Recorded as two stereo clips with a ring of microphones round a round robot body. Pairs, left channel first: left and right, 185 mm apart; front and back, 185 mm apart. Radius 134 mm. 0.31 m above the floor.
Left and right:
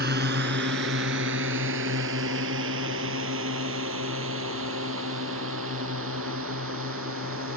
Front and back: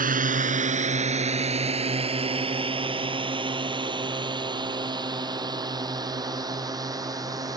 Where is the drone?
140° right; by 7.6 s 110° right.